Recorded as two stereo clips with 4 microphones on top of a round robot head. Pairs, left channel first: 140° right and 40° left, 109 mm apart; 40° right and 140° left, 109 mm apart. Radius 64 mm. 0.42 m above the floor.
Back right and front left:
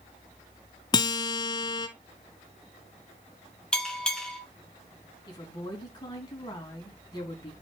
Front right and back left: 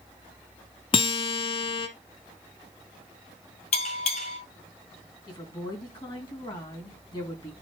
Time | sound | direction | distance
0.9 | a guitar | 85° right | 1.0 m
3.7 | a bell | 55° right | 3 m
5.3 | a woman speaking | 90° right | 3.5 m